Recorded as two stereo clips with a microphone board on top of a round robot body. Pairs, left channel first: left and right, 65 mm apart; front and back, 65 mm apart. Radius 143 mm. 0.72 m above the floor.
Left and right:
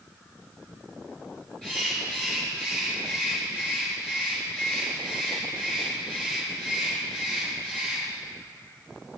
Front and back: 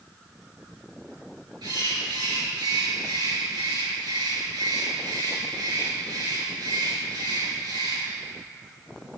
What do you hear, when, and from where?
1.6 s a bird: 170° left, 7 m